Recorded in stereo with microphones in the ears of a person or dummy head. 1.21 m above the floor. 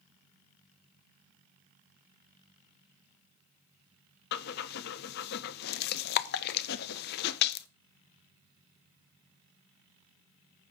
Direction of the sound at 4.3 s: 55° left (ahead or behind).